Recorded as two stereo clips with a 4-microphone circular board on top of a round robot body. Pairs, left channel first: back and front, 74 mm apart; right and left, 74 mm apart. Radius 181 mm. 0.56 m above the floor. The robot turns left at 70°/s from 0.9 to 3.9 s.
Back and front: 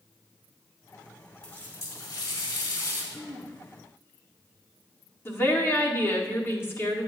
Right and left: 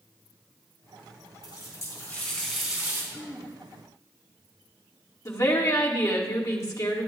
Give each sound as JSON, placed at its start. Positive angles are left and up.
{"t": 1.4, "sound": "a running tap", "azimuth_deg": -100, "distance_m": 3.0}
{"t": 3.1, "sound": "throat clearing", "azimuth_deg": -140, "distance_m": 1.5}
{"t": 5.2, "sound": "a woman speaking", "azimuth_deg": -130, "distance_m": 2.0}